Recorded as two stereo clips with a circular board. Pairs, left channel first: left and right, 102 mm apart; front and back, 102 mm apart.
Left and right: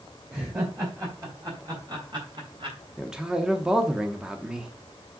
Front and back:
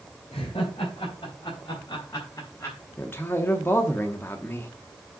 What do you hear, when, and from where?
0.3 s laughter: 25° right, 4 m; by 2.8 s 65° right, 3.5 m
3.0 s a man speaking: 20° right, 0.9 m